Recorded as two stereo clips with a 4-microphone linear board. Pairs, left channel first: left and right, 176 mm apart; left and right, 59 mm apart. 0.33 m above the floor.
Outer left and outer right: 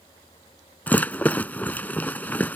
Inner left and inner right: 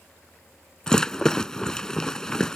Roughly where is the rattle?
Centre.